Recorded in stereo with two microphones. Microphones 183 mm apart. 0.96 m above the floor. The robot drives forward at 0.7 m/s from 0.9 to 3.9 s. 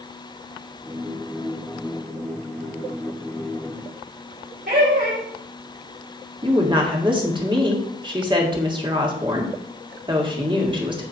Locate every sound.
4.7 s laughter: 60° right (ahead or behind), 3 m
6.4 s a woman speaking: 25° right (ahead or behind), 1.8 m